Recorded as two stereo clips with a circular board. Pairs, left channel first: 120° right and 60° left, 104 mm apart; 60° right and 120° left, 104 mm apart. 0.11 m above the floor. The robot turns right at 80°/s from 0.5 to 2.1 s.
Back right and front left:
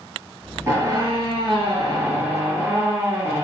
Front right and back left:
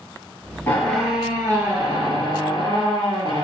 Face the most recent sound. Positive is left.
turn(degrees=115)